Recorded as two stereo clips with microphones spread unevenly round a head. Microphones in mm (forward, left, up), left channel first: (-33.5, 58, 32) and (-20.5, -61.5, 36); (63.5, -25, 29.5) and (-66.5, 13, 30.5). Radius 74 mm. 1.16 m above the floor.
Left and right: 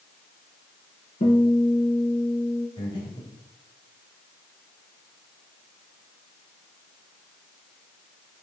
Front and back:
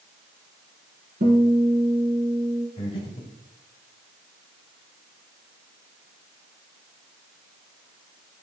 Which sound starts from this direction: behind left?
A guitar, at 1.2 s.